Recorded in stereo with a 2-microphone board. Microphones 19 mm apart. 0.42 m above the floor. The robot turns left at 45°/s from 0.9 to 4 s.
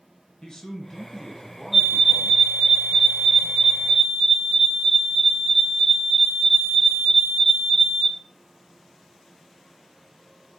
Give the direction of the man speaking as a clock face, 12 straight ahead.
11 o'clock.